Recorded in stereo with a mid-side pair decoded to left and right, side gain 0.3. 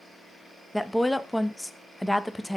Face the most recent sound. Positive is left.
turn(degrees=10)